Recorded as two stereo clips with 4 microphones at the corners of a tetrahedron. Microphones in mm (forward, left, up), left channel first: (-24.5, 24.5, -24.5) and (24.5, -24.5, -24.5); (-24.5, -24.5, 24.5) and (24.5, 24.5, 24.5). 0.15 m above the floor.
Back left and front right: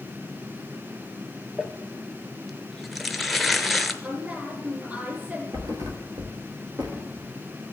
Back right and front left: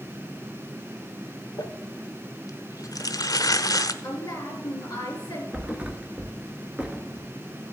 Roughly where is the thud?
Ahead right.